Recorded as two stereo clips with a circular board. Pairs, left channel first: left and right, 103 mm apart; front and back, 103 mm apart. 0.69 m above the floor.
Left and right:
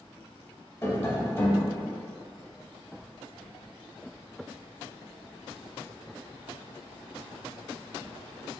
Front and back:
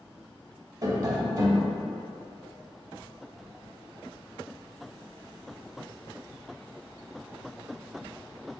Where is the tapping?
145° left, 0.6 m.